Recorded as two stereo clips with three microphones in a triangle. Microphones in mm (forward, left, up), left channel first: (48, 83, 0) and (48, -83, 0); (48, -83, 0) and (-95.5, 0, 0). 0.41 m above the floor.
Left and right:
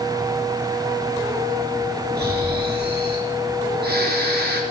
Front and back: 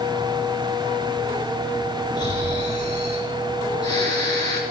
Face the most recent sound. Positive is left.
turn(degrees=-95)